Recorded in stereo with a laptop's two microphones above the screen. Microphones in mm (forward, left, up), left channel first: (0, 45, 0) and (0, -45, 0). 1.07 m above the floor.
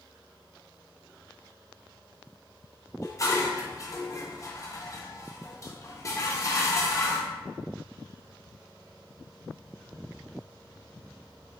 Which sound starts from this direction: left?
Dishes clattering, at 3.0 s.